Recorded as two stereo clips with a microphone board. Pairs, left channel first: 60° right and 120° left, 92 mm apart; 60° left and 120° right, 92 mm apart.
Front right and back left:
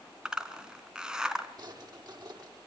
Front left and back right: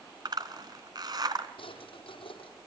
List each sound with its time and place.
0.2 s a zipper: 160° right, 2.0 m
1.6 s a drawer: 75° left, 5.5 m